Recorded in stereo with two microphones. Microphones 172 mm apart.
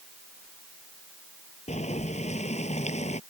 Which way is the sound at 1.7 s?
40° left (ahead or behind).